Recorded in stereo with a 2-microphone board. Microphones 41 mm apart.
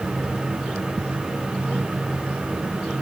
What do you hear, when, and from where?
Only background noise.